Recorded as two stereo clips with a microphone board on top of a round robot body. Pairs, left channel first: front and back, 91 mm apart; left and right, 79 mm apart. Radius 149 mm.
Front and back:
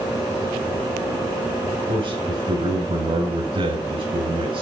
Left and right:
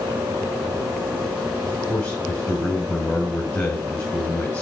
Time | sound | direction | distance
1.6 | a man speaking | 160° left | 5.5 m